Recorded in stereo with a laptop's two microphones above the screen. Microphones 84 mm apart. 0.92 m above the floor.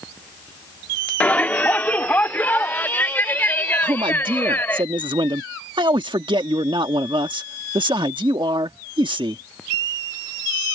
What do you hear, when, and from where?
1.2 s a shout: 20° left (ahead or behind); by 4.8 s 25° left (ahead or behind)
3.8 s a man speaking: 70° right (ahead or behind)